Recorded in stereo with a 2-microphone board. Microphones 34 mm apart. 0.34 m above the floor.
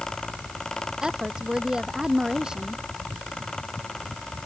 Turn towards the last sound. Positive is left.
turn(degrees=-25)  # may be behind; listen again after turning